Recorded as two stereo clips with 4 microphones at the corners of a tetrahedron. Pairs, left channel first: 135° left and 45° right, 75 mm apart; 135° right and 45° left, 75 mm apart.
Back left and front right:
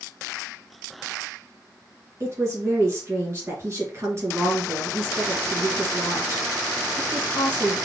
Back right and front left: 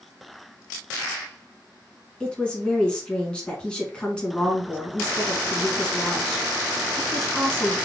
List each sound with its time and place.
2.2 s a woman speaking: 65° right, 1.6 m